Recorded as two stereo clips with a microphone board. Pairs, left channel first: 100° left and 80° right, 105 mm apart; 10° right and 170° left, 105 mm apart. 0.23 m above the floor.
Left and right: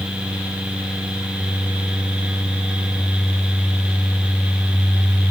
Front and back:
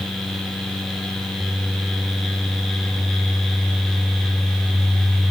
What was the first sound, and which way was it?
Only background noise.